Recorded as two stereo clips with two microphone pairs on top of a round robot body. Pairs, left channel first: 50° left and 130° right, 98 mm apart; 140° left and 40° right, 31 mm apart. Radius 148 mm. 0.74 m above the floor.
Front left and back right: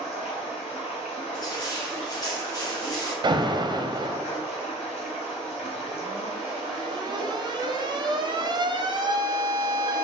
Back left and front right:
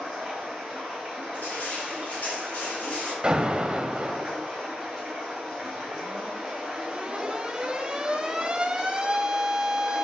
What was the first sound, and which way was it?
Running water, 40° left.